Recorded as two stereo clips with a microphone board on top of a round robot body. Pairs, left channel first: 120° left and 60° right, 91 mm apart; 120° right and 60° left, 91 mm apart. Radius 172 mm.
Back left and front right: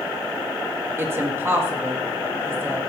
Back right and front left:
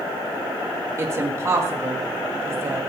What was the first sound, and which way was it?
A woman speaking, straight ahead.